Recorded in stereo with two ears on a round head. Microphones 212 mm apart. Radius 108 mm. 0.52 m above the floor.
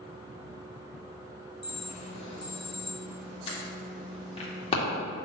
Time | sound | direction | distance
1.6 | an alarm | 25° left (ahead or behind) | 2 m